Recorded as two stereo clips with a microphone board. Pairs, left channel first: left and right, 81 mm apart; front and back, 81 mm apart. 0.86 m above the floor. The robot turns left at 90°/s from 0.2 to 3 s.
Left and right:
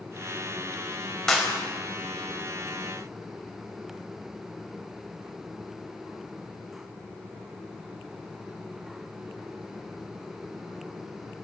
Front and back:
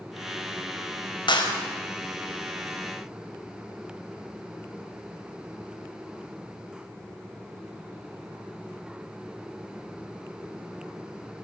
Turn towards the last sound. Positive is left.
turn(degrees=-150)